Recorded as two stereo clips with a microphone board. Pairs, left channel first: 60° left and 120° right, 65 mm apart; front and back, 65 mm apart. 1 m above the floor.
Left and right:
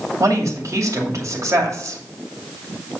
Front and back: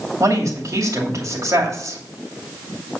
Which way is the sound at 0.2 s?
150° right.